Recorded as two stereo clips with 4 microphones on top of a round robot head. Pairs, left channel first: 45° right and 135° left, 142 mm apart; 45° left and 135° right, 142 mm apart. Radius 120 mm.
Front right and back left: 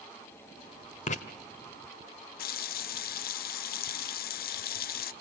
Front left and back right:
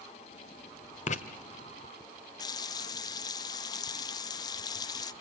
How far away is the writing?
About 1.3 m.